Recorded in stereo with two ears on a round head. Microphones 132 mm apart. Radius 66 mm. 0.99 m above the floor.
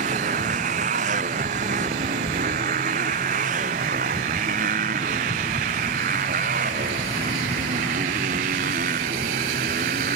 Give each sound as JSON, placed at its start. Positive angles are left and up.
{"t": 0.0, "sound": "a motorcycle", "side_deg": -55}